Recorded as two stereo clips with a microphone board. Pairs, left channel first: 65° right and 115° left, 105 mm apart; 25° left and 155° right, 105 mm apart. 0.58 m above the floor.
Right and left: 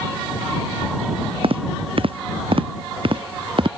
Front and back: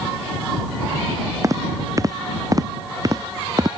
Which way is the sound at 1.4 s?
145° left.